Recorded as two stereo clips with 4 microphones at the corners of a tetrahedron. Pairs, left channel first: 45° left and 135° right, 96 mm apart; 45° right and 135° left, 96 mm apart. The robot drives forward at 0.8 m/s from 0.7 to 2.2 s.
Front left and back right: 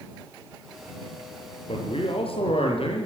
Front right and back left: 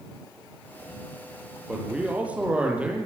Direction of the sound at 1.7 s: 55° left.